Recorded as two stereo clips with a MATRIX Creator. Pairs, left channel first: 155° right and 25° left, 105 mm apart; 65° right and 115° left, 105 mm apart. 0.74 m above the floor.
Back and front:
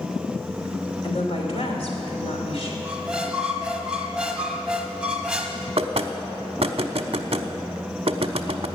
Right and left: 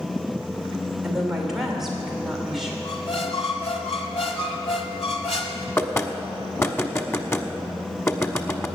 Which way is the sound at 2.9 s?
55° right.